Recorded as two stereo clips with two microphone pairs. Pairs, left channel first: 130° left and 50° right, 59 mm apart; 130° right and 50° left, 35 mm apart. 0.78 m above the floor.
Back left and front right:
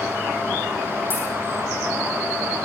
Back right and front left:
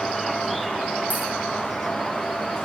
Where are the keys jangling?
85° left, 6.5 m.